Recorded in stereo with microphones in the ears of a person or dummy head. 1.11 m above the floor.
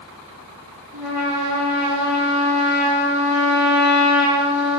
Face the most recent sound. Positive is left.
turn(degrees=-5)  # may be behind; listen again after turning